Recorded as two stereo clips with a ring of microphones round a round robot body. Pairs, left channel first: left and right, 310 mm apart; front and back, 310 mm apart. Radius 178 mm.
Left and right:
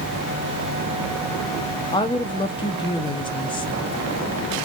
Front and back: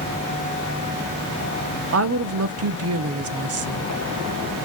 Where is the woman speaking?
160° left, 0.6 m.